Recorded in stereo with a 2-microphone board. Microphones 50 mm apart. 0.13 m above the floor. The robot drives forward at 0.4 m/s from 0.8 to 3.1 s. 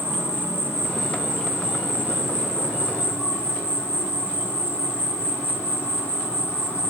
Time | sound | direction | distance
0.0 | an insect | 40° right (ahead or behind) | 2.5 m